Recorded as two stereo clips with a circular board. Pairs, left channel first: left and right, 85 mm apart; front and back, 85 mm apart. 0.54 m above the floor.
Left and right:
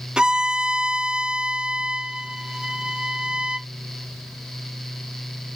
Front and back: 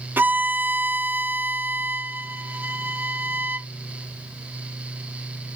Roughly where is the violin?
Behind right.